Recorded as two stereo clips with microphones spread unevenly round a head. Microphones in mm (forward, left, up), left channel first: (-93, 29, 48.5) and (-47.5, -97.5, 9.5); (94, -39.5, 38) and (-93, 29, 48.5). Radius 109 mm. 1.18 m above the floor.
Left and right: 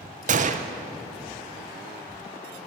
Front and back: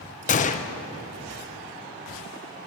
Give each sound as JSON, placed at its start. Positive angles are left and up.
{"t": 0.3, "sound": "a gunshot", "azimuth_deg": -70, "distance_m": 0.7}